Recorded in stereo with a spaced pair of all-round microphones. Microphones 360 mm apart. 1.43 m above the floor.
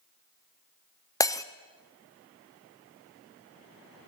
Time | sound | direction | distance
1.2 | breaking glass | 10° left (ahead or behind) | 0.5 m